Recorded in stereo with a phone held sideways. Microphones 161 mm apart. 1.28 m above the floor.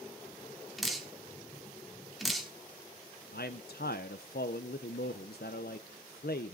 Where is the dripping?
Centre (ahead or behind), 1.6 m.